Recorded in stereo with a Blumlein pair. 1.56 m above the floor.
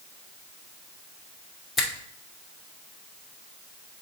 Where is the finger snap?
15° left, 1.5 m.